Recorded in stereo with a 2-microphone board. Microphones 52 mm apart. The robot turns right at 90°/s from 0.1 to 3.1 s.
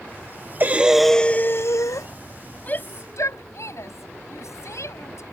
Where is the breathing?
35° right; by 2.1 s 95° left.